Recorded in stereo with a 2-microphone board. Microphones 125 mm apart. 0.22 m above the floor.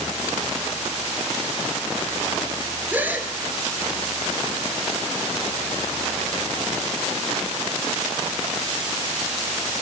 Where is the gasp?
15° right (ahead or behind), 2.5 m.